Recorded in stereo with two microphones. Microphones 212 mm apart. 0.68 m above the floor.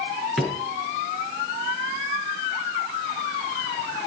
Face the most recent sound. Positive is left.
turn(degrees=0)  # may be behind; listen again after turning